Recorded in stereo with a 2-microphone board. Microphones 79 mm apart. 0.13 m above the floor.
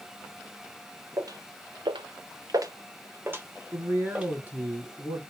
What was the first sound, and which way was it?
Footsteps, 45° right (ahead or behind).